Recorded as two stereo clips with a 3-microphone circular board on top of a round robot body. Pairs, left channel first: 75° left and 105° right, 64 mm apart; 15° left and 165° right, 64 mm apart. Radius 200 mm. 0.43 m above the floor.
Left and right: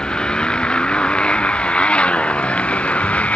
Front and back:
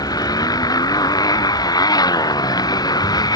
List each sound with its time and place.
0.0 s a motorcycle: 5° right; by 3.4 s 5° left